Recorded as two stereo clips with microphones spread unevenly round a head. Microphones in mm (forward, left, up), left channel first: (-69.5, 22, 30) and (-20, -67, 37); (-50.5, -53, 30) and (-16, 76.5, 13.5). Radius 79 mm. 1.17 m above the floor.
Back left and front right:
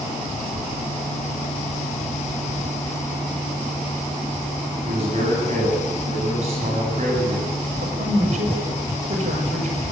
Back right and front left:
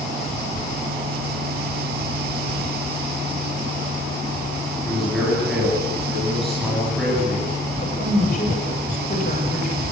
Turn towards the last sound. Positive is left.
turn(degrees=-60)